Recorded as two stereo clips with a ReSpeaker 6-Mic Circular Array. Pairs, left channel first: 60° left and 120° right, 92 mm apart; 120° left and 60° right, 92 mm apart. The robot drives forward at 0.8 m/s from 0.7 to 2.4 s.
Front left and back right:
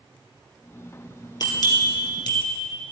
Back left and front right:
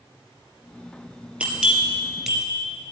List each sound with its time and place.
1.4 s a bell: 20° left, 2 m; by 2.5 s 30° left, 1.4 m